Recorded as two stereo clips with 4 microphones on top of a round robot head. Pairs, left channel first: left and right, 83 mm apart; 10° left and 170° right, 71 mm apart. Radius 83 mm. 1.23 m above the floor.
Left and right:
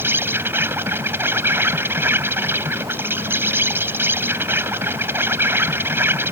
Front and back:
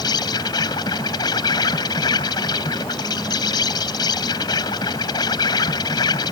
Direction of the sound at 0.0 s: 25° right.